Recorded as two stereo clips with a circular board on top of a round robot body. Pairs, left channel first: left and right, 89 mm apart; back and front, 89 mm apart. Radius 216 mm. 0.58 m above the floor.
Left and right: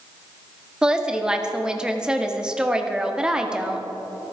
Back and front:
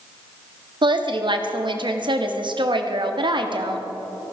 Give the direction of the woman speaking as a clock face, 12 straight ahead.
12 o'clock.